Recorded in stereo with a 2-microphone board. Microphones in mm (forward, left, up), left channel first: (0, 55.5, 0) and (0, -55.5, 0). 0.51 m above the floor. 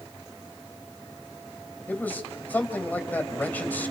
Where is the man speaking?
15° left (ahead or behind), 3 m.